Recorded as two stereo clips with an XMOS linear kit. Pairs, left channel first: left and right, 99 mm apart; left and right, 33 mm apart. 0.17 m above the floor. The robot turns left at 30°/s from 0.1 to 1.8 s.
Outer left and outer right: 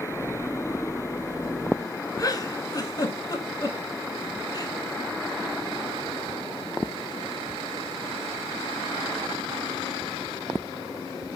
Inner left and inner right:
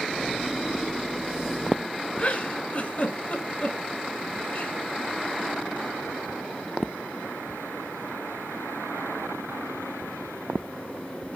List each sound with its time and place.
2.2 s a giggle: 35° left (ahead or behind), 0.8 m